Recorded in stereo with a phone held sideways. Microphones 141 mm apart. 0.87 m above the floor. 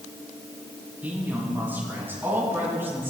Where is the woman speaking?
15° right (ahead or behind), 6 m.